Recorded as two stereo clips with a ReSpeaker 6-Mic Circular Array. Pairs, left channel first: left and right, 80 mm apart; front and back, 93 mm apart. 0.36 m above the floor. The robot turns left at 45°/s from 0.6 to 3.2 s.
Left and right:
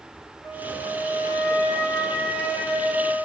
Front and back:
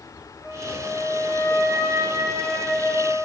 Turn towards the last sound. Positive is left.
turn(degrees=-40)